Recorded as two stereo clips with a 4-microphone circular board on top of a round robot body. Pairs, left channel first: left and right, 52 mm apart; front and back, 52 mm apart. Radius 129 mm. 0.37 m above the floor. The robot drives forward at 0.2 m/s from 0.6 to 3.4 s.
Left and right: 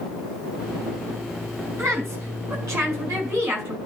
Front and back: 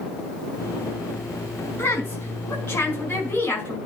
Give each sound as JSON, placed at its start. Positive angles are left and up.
{"t": 1.8, "sound": "a woman speaking", "azimuth_deg": -50, "distance_m": 5.0}